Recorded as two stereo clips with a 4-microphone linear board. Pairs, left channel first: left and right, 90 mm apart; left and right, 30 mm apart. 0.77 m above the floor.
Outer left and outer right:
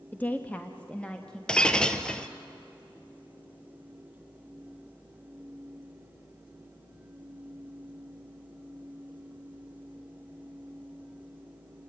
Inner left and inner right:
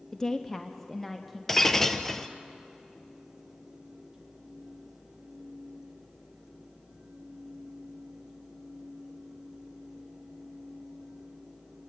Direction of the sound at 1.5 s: 10° left (ahead or behind).